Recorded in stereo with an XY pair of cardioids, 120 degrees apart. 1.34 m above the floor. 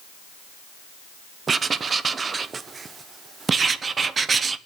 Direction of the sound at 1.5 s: 35° right.